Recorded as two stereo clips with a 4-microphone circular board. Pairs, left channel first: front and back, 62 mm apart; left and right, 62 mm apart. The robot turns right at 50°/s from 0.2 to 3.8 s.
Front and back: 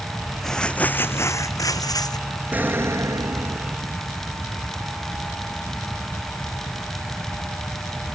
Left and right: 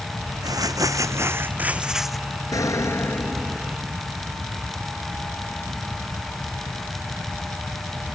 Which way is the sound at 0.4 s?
85° right.